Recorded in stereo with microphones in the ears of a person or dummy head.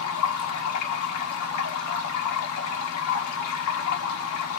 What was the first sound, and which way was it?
Running water, 80° left.